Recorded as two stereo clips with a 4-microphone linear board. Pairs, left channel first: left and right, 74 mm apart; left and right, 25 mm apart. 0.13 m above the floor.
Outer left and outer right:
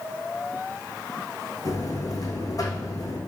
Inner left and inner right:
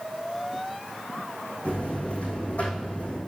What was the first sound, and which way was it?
A buzzer, 55° left (ahead or behind).